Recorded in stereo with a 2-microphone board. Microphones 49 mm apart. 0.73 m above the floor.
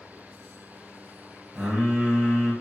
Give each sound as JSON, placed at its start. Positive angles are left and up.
{"t": 1.6, "sound": "singing", "side_deg": -20, "distance_m": 2.0}